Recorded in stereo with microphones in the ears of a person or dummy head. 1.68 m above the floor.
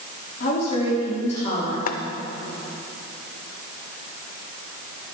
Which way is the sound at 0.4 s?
45° left (ahead or behind).